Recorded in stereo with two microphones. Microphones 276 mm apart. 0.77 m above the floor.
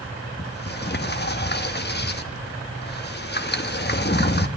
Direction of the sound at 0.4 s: 35° left (ahead or behind).